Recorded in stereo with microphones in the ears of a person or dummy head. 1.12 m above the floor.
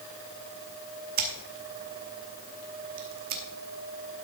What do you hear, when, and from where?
1.2 s scissors: 45° right (ahead or behind), 1.0 m